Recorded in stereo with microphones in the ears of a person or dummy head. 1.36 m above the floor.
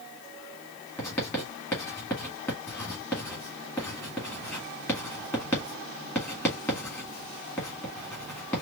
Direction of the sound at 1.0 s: 15° left (ahead or behind).